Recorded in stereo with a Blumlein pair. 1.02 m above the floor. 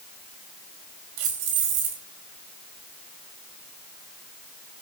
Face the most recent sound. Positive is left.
turn(degrees=-45)